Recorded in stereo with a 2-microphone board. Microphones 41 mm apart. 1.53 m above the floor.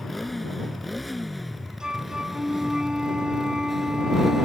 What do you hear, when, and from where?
0.0 s a motorcycle: centre (ahead or behind); by 4.5 s 5° right (ahead or behind)
1.8 s a flute: 15° right (ahead or behind)